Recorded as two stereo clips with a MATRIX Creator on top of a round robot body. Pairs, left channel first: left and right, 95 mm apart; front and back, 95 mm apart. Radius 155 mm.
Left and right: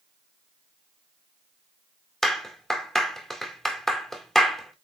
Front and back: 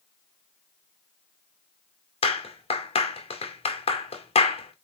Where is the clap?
5° left, 2 m.